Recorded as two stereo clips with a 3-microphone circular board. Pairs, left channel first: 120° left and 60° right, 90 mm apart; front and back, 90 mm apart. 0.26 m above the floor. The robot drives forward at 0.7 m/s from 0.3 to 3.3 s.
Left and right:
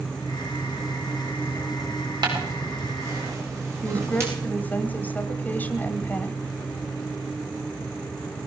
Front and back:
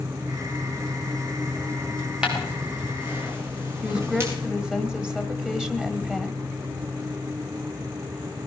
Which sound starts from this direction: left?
A woman speaking, at 3.8 s.